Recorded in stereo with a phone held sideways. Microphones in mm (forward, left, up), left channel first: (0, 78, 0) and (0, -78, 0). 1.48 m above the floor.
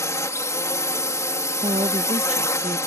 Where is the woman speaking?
45° right (ahead or behind).